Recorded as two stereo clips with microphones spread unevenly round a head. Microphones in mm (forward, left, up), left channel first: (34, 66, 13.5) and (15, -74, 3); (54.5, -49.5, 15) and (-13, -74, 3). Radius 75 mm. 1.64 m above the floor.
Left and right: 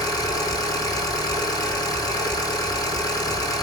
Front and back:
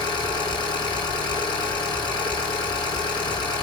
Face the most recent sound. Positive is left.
turn(degrees=20)